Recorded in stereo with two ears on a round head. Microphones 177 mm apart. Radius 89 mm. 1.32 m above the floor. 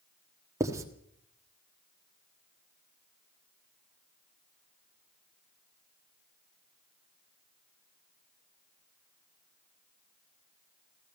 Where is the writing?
15° right (ahead or behind), 1.4 m.